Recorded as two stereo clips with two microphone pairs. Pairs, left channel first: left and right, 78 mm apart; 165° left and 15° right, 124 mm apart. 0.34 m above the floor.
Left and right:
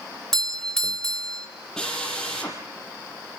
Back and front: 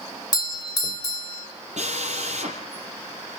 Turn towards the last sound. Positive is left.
turn(degrees=5)